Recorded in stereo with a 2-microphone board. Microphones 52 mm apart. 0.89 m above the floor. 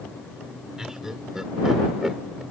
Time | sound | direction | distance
0.8 | laughter | 10° right (ahead or behind) | ?